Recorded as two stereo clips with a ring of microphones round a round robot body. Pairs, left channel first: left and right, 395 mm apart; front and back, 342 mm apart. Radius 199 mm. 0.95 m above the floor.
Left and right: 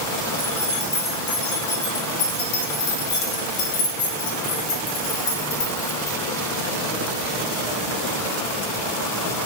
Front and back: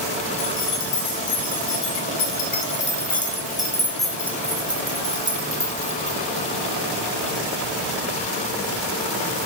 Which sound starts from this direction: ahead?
Keys jangling, at 0.4 s.